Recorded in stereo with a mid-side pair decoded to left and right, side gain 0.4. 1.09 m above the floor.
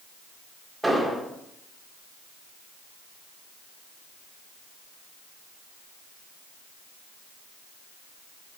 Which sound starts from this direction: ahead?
An explosion, at 0.8 s.